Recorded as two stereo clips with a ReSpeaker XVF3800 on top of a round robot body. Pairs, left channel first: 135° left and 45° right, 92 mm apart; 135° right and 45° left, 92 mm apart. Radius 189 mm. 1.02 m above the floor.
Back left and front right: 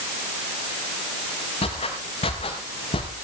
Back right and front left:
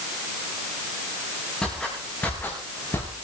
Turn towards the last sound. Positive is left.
turn(degrees=160)